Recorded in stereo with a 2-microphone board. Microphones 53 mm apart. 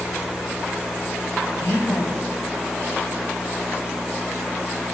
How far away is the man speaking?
About 3 m.